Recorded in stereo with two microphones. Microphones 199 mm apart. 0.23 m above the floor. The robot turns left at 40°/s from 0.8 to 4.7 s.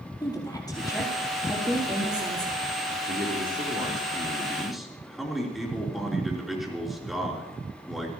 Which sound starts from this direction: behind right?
A man speaking, at 3.1 s.